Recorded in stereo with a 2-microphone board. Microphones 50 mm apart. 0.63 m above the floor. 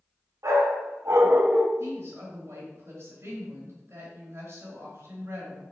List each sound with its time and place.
0.4 s a dog barking: 85° right, 1.9 m; by 1.7 s 25° right (ahead or behind), 0.8 m
1.8 s a woman speaking: 55° right (ahead or behind), 3.5 m